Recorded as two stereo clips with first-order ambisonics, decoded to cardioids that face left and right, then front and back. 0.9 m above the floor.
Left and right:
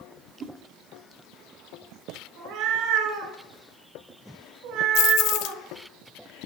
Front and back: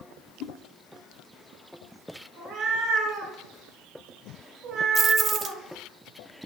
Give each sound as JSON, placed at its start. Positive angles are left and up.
{"t": 0.4, "sound": "a whoosh", "azimuth_deg": -30, "distance_m": 1.2}
{"t": 2.4, "sound": "a cat meowing", "azimuth_deg": -120, "distance_m": 5.0}
{"t": 5.0, "sound": "keys jangling", "azimuth_deg": 110, "distance_m": 0.5}